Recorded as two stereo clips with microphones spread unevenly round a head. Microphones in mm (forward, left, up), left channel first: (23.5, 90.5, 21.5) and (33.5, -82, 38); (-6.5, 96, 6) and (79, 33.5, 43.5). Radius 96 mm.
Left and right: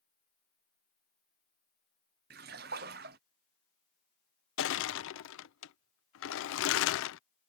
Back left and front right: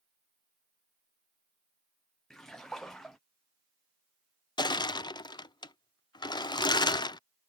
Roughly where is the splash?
Behind right.